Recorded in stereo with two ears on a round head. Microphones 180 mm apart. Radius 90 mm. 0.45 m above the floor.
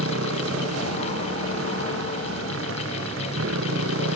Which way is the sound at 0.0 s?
75° right (ahead or behind).